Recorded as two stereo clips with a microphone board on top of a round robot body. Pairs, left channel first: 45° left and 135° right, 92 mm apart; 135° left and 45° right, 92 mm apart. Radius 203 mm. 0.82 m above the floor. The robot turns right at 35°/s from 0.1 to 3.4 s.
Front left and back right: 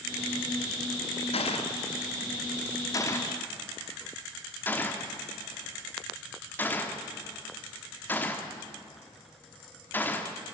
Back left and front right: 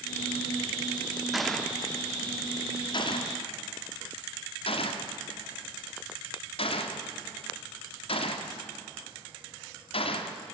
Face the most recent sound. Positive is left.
turn(degrees=115)